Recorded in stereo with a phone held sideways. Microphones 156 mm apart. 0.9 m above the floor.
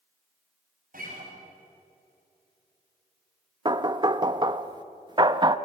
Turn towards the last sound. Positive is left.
turn(degrees=-30)  # may be behind; listen again after turning